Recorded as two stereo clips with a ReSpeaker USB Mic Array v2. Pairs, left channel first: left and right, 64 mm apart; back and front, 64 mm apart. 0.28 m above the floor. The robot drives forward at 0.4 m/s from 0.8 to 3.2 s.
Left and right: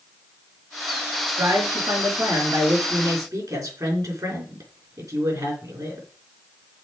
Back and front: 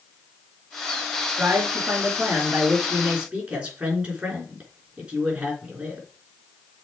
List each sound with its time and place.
1.3 s a man speaking: 60° right, 4 m; by 6.1 s 70° right, 3.5 m